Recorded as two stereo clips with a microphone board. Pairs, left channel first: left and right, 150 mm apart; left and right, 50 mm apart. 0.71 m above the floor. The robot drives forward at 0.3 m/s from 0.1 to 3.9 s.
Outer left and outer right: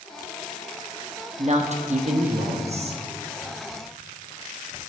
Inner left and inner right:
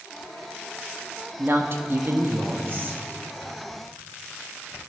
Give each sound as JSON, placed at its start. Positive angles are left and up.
{"t": 1.4, "sound": "a woman speaking", "side_deg": -50, "distance_m": 0.8}